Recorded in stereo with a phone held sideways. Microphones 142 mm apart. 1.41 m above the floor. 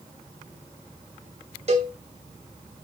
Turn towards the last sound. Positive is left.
turn(degrees=-45)  # may be behind; listen again after turning